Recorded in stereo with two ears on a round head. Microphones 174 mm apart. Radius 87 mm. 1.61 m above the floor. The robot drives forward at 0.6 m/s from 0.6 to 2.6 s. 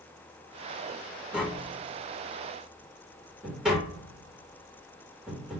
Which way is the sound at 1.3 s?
5° right (ahead or behind).